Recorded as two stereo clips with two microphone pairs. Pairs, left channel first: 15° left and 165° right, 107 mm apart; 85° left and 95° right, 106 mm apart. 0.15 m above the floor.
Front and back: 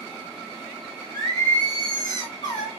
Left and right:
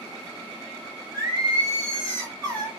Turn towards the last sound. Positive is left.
turn(degrees=-40)